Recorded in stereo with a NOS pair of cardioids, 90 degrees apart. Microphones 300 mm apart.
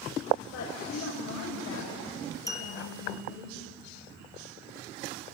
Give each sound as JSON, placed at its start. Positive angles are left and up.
{"t": 0.5, "sound": "a woman speaking", "azimuth_deg": 65, "distance_m": 7.5}
{"t": 2.5, "sound": "a clink", "azimuth_deg": 10, "distance_m": 2.5}